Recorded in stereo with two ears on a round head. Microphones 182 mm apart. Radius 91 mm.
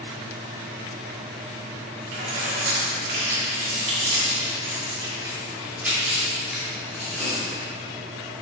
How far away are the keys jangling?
About 3 m.